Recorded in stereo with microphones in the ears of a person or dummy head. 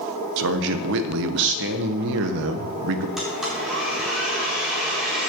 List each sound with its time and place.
0.4 s a man speaking: 65° right (ahead or behind), 1.1 m
3.2 s a blender: centre (ahead or behind), 4.5 m